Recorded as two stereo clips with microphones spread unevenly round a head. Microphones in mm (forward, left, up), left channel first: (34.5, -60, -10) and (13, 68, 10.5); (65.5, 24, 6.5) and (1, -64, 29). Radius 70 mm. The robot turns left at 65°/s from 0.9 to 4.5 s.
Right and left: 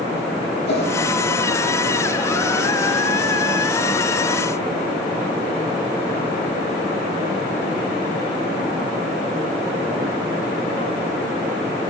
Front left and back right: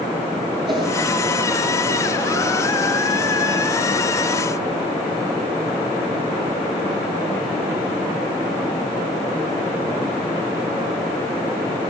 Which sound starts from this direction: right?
A whoosh, at 0.7 s.